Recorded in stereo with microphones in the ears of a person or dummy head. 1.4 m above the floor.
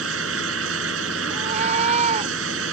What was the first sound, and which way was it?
A fan, 80° right.